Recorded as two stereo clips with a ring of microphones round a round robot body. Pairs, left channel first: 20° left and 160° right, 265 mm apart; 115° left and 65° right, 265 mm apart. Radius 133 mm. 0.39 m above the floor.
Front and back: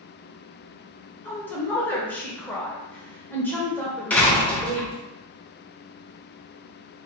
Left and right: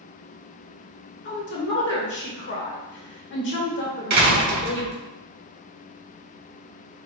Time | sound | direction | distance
1.2 | a woman speaking | 100° left | 1.2 m
4.1 | a door slam | 60° right | 1.0 m